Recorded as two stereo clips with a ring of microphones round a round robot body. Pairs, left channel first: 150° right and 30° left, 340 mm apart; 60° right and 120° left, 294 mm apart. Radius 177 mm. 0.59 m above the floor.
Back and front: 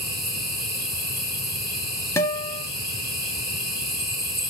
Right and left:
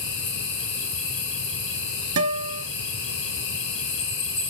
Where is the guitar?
130° left, 1.1 m.